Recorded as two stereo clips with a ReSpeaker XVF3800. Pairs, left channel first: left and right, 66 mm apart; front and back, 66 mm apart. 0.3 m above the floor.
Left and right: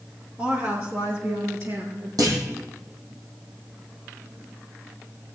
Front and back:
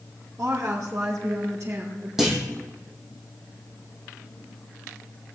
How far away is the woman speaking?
About 4 m.